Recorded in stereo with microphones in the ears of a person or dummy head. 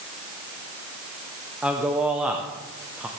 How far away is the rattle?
No rattle in this recording.